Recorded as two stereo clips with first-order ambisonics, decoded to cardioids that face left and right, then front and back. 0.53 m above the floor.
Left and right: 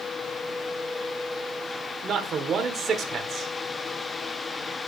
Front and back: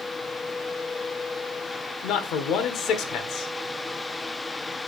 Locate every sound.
2.0 s a man speaking: 35° right, 1.2 m